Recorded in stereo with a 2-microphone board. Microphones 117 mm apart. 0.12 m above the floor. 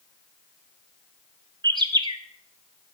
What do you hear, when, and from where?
1.6 s a bird: 40° right (ahead or behind), 0.5 m